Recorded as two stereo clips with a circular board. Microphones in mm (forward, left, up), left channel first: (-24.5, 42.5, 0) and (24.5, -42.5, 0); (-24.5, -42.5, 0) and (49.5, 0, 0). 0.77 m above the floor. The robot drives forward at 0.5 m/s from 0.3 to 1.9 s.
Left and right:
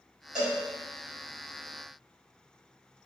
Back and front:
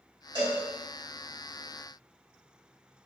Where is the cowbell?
20° left, 1.8 m; by 0.6 s 25° left, 1.7 m.